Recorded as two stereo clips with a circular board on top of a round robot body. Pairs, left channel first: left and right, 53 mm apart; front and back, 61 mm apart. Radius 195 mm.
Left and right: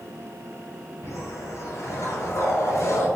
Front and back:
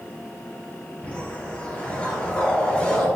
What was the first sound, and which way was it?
A whoosh, 70° left.